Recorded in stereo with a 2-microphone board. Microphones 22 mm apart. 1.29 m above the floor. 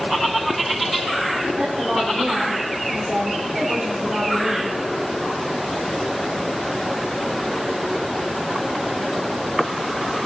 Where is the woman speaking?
45° right (ahead or behind), 4.5 m.